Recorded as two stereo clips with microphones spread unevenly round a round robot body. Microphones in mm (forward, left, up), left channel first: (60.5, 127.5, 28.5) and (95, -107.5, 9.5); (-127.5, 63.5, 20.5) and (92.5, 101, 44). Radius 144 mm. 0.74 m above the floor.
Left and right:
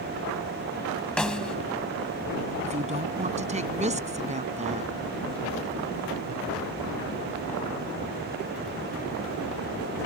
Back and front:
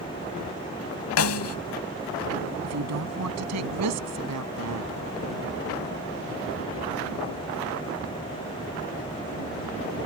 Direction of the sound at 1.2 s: 175° right.